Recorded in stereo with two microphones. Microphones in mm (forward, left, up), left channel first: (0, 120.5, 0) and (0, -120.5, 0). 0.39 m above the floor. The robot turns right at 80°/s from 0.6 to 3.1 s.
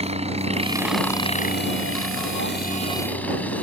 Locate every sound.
0.0 s a helicopter: 25° right (ahead or behind); by 3.6 s 5° left (ahead or behind)